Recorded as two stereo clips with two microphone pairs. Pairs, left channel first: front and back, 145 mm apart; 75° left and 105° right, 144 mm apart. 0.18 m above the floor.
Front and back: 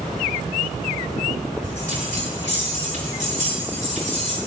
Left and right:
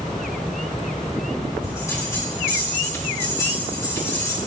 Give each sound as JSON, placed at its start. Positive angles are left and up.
{"t": 1.6, "sound": "a bell", "azimuth_deg": 145, "distance_m": 6.0}